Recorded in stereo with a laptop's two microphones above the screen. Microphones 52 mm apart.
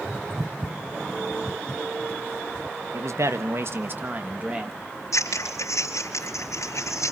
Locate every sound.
2.9 s a man speaking: 65° right (ahead or behind), 1.3 m; by 4.8 s 20° right (ahead or behind), 1.7 m
5.1 s scissors: 80° left, 3.5 m